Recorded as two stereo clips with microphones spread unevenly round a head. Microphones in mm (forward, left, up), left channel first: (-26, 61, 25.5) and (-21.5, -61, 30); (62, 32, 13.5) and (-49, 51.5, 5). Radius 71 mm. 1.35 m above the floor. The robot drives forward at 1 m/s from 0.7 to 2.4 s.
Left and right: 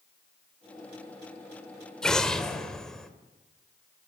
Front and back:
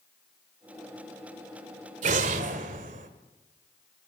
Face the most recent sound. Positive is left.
turn(degrees=180)